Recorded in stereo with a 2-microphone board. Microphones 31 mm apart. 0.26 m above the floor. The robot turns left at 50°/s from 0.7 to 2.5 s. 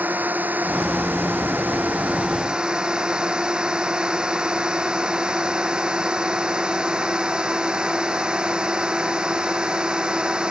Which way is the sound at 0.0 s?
60° right.